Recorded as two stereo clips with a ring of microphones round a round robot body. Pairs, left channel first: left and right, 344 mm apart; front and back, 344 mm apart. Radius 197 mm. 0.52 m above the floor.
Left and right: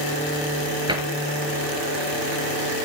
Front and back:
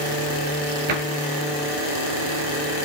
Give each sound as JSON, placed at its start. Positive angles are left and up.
{"t": 0.9, "sound": "a cupboard door", "azimuth_deg": -170, "distance_m": 3.5}